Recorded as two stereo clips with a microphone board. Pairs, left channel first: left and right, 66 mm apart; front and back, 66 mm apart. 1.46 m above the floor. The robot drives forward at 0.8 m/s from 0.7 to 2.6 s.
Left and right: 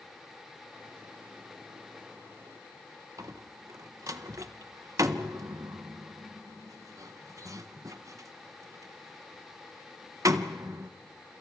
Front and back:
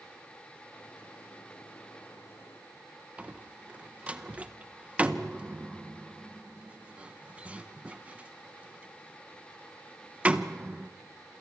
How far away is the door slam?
About 0.8 m.